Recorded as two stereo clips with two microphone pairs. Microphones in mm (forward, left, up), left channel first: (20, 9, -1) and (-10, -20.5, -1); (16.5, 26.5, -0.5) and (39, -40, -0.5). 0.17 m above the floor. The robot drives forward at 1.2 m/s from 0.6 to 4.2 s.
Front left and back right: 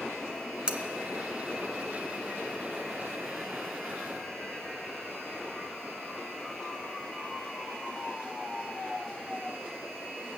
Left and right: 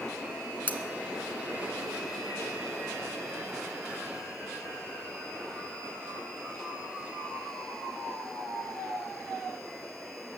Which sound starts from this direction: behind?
Cutlery clinking, at 0.7 s.